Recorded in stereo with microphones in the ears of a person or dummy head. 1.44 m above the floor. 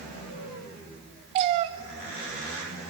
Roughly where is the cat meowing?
Right.